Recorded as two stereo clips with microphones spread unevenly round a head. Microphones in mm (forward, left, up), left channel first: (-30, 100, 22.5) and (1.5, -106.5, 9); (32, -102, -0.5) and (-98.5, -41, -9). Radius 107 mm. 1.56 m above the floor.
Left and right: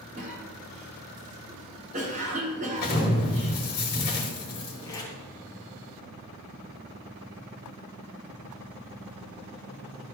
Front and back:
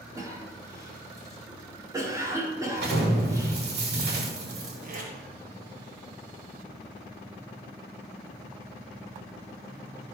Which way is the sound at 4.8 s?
170° left.